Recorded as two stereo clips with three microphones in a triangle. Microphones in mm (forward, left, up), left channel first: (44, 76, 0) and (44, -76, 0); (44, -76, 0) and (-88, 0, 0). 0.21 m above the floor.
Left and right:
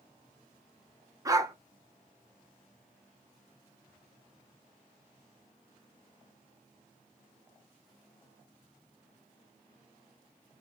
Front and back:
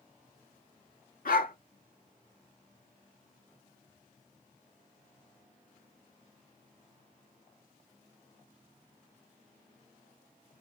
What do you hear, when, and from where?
1.2 s a dog barking: 25° right, 1.0 m